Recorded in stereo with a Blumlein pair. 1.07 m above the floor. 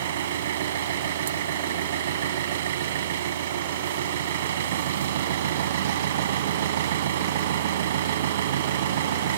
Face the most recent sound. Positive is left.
turn(degrees=-60)